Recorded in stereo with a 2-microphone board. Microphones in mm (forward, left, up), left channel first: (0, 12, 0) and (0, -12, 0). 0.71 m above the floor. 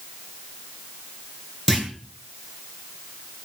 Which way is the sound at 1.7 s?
15° left (ahead or behind).